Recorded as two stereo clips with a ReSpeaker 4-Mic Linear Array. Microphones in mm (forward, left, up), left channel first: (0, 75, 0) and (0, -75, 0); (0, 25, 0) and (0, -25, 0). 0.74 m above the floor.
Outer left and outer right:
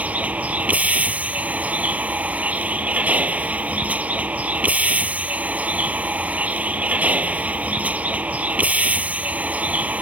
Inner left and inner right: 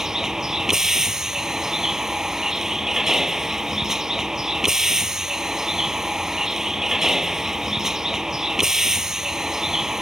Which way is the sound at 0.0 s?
10° right (ahead or behind).